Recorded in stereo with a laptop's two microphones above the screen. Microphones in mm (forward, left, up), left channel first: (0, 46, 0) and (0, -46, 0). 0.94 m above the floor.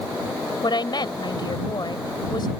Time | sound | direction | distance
0.6 | a woman speaking | 55° left (ahead or behind) | ?